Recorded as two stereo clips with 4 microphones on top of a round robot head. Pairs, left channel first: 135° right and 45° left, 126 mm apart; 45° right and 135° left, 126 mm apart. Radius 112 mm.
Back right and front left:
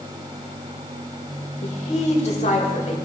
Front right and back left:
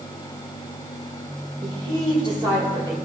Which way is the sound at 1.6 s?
170° right.